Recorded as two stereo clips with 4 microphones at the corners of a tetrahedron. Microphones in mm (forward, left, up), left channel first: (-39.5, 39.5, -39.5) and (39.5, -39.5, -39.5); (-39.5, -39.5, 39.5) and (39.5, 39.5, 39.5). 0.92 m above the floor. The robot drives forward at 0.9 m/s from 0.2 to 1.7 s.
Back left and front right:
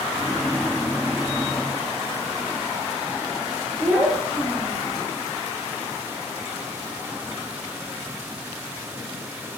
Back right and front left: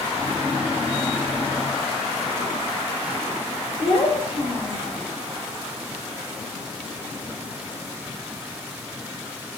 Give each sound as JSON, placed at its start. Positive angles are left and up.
{"t": 3.8, "sound": "a child speaking", "azimuth_deg": -90, "distance_m": 3.0}